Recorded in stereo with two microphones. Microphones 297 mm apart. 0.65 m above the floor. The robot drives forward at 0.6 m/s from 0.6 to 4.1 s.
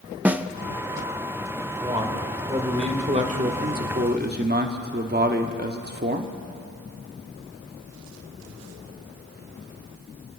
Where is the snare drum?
5° right (ahead or behind), 0.6 m.